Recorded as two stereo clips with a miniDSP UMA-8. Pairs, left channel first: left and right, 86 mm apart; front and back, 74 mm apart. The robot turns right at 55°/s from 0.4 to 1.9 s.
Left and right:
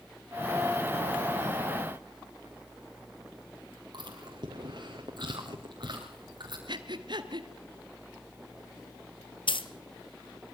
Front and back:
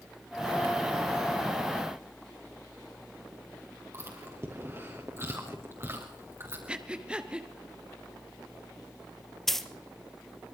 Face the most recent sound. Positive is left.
turn(degrees=85)